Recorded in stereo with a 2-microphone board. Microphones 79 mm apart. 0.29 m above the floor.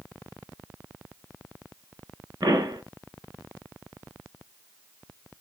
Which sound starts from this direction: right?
A pop, at 2.4 s.